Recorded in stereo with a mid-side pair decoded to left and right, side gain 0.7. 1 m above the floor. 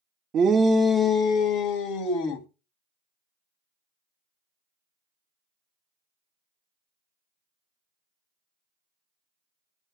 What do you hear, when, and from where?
0.3 s a shout: 40° right, 0.6 m; by 2.5 s 65° left, 1.9 m